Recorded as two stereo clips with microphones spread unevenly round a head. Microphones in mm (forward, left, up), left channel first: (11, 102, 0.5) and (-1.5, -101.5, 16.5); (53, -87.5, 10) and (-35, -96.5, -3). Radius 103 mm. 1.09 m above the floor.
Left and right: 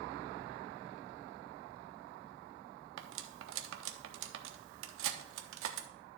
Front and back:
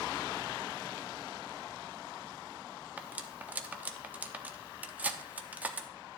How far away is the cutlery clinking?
About 0.9 m.